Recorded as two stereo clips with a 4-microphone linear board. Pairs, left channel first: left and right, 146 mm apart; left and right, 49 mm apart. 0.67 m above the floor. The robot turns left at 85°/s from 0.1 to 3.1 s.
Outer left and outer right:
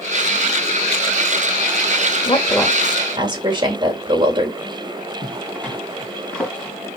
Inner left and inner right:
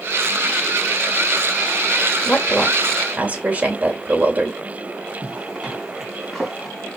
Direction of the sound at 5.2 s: 10° left (ahead or behind).